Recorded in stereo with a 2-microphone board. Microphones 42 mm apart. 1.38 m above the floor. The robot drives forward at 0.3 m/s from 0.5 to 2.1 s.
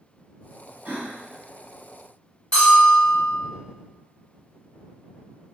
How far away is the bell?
About 1.4 m.